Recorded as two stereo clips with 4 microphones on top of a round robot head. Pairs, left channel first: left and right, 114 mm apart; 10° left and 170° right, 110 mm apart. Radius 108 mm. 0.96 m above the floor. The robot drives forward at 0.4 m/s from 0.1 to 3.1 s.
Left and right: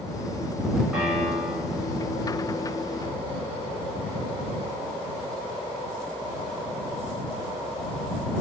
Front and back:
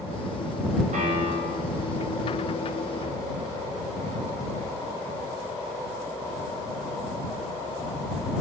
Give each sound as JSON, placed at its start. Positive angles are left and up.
{"t": 0.9, "sound": "a piano", "azimuth_deg": -175, "distance_m": 5.5}